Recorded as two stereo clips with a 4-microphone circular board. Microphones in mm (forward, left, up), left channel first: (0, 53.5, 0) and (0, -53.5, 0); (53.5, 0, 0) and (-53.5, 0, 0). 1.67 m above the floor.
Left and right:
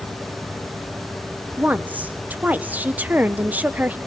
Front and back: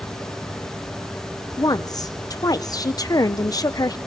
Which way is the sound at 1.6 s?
25° right.